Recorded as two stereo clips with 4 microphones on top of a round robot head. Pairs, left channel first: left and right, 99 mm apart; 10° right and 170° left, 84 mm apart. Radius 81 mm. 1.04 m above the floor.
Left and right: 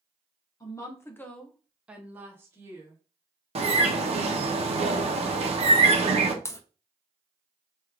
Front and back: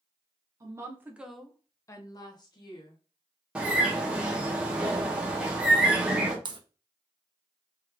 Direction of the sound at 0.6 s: 135° left.